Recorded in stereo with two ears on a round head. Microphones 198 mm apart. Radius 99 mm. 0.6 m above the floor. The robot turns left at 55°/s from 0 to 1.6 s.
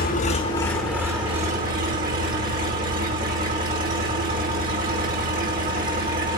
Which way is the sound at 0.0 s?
45° left.